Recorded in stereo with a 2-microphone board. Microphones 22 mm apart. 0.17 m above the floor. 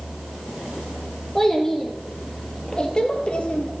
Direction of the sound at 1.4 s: 10° left (ahead or behind).